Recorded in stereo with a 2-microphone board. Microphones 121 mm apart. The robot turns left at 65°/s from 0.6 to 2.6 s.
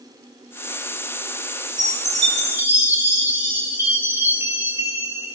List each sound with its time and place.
1.8 s a chime: 105° right, 4 m; by 5.4 s 160° right, 4 m